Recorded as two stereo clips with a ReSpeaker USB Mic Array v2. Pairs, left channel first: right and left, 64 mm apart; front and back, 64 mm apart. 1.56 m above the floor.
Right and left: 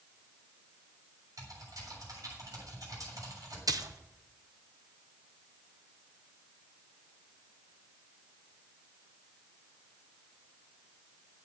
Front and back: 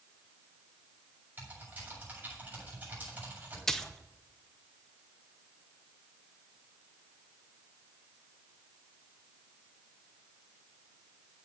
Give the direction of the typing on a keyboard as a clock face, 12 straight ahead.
8 o'clock.